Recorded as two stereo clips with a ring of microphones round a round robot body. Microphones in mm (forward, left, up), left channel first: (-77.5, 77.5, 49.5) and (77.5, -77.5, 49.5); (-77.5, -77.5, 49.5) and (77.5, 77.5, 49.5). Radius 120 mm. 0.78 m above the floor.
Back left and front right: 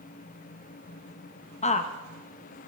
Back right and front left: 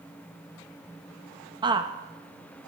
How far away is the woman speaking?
About 1.0 m.